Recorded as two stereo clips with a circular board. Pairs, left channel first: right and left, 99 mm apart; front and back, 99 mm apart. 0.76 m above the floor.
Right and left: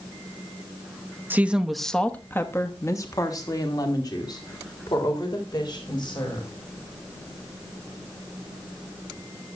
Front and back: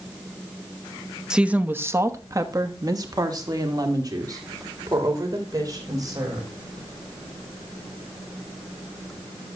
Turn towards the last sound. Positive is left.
turn(degrees=-130)